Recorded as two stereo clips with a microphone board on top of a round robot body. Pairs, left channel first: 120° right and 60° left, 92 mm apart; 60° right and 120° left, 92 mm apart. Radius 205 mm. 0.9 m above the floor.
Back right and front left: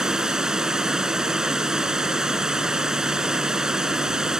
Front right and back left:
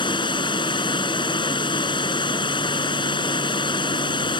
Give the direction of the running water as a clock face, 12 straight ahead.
1 o'clock.